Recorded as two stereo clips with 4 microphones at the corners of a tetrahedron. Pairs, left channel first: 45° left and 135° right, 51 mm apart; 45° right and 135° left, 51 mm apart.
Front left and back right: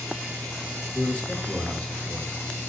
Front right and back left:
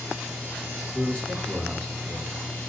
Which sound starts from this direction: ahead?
A man speaking, at 0.9 s.